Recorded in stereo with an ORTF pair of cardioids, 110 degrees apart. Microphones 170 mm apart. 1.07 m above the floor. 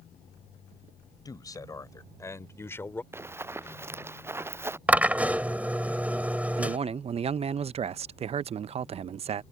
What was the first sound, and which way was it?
A man speaking, 20° left.